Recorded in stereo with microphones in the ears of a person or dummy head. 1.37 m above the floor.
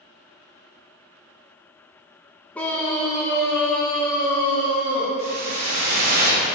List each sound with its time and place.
2.5 s a scream: 15° left (ahead or behind), 1.8 m; by 5.1 s 25° left (ahead or behind), 3.5 m
5.2 s a whoosh: 45° right (ahead or behind), 1.9 m